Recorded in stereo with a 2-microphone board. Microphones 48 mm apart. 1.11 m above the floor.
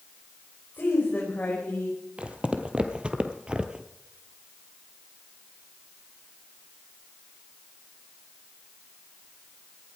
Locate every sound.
0.7 s a woman speaking: 40° left (ahead or behind), 4.5 m; by 2.0 s 30° left (ahead or behind), 5 m
2.2 s footsteps: 25° right (ahead or behind), 1.7 m; by 3.9 s 20° right (ahead or behind), 1.1 m